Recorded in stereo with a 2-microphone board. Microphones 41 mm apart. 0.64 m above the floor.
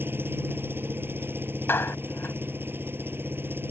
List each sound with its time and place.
0.0 s an engine running: 65° right (ahead or behind)
1.7 s a clap: 75° left (ahead or behind)